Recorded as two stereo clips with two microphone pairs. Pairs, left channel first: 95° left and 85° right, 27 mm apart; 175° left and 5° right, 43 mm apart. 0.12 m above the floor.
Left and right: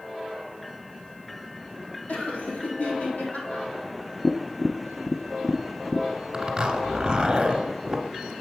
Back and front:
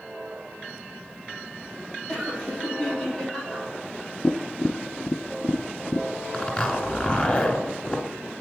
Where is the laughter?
100° left, 3.5 m.